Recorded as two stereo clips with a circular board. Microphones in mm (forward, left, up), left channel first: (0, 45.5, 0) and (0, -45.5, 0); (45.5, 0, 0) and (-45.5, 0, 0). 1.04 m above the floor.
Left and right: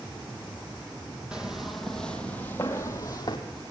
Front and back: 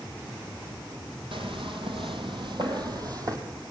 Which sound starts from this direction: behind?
Footsteps, at 1.3 s.